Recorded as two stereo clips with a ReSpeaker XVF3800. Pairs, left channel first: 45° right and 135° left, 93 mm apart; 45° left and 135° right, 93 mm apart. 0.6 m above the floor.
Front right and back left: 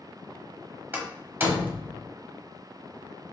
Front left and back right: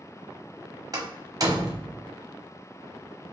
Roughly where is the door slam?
Behind.